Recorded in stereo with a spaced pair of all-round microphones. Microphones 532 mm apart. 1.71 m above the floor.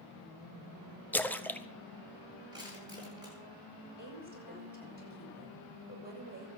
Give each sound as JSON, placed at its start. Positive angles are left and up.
{"t": 1.1, "sound": "a splash", "side_deg": 5, "distance_m": 0.9}
{"t": 2.5, "sound": "crushing", "side_deg": -5, "distance_m": 10.0}
{"t": 4.0, "sound": "a woman speaking", "side_deg": -20, "distance_m": 7.5}